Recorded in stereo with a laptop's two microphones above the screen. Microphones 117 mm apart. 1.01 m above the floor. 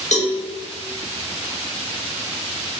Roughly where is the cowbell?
Left.